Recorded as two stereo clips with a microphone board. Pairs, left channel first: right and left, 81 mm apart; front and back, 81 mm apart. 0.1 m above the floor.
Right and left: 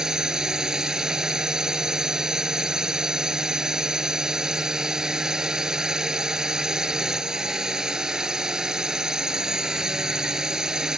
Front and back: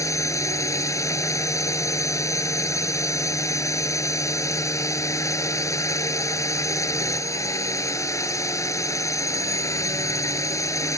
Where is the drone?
10° left.